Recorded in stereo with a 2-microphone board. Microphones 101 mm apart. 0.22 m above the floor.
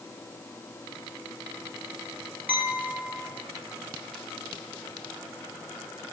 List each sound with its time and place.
2.5 s a clink: 15° right (ahead or behind), 3 m